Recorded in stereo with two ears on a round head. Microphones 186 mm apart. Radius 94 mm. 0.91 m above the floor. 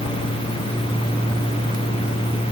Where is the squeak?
No squeak in this recording.